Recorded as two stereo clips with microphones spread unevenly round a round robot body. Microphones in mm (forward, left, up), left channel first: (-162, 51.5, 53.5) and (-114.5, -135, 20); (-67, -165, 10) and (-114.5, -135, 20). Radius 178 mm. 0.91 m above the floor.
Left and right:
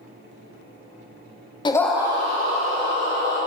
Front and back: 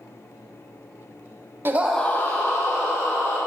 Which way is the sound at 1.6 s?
170° left.